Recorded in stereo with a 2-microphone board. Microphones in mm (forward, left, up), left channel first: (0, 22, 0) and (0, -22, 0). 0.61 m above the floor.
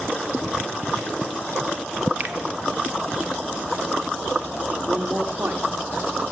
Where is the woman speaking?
55° right (ahead or behind), 1.5 m.